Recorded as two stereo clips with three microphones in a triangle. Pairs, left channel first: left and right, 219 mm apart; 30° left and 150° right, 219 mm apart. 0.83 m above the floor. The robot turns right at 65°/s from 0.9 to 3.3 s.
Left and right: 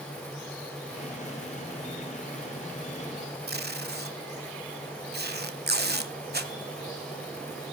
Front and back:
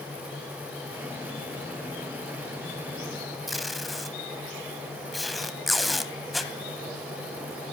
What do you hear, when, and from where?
3.5 s tape being pulled: 60° right, 1.1 m